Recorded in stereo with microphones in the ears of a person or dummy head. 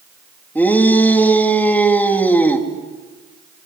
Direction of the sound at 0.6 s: 5° left (ahead or behind).